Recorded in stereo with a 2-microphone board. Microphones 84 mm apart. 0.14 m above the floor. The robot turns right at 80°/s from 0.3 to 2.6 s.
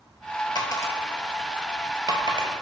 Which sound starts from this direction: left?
A dropped coin, at 0.6 s.